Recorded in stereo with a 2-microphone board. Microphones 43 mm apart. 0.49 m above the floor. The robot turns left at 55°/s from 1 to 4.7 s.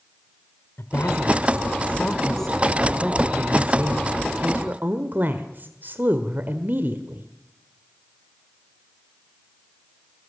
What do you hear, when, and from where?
0.8 s a woman speaking: 90° left, 1.5 m; by 7.3 s 115° right, 1.5 m